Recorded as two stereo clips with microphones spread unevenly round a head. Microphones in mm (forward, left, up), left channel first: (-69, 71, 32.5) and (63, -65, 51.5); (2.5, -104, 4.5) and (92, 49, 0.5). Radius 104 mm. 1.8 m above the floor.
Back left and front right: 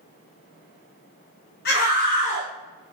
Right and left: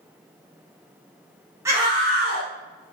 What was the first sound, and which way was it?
A scream, 130° left.